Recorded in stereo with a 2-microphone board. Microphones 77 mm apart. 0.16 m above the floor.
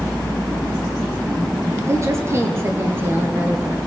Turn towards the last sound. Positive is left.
turn(degrees=-20)  # may be behind; listen again after turning